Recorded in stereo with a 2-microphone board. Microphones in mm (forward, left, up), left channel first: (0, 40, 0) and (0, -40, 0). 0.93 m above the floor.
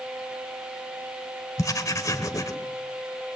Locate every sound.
1.6 s writing: 45° left (ahead or behind), 1.3 m